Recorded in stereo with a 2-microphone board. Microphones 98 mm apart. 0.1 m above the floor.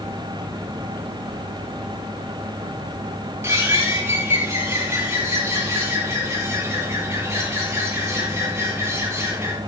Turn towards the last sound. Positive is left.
turn(degrees=-25)  # may be behind; listen again after turning